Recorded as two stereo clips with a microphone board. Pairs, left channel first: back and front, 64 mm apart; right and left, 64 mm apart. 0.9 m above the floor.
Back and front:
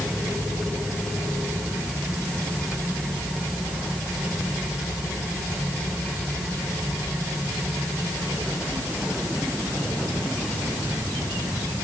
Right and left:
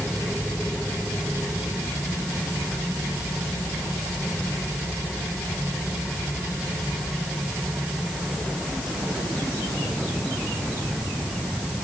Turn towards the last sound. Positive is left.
No sound to turn to.